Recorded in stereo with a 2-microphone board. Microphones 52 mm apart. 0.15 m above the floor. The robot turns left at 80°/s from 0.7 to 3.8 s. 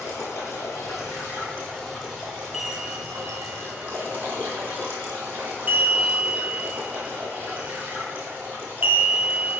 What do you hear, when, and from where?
0.0 s running water: 100° left, 3 m; by 9.6 s 150° right, 3 m
2.5 s a chime: 10° right (ahead or behind), 1.1 m; by 9.6 s 30° right (ahead or behind), 1.1 m